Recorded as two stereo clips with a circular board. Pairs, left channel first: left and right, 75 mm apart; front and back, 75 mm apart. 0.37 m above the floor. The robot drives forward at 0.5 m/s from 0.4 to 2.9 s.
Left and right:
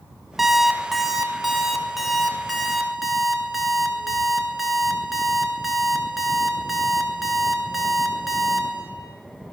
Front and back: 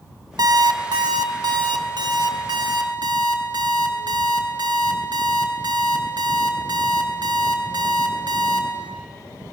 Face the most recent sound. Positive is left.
turn(degrees=-175)